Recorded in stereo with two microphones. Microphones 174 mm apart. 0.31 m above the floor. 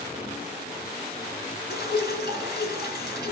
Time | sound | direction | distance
1.7 | dripping | 70° left (ahead or behind) | 1.6 m